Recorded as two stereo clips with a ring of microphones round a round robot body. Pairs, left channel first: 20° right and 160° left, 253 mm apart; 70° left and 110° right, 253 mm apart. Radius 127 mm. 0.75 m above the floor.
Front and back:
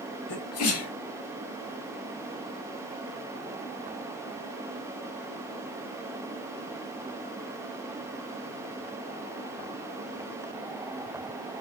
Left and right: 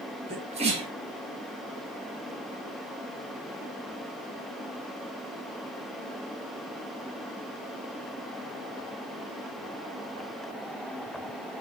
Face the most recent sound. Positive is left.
turn(degrees=-50)